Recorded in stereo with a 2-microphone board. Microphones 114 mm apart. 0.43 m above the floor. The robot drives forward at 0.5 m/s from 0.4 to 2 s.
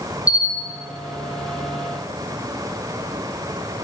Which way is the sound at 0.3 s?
60° right (ahead or behind).